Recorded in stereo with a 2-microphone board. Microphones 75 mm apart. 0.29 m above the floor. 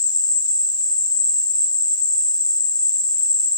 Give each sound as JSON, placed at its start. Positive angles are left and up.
{"t": 0.0, "sound": "an insect", "side_deg": 75, "distance_m": 0.9}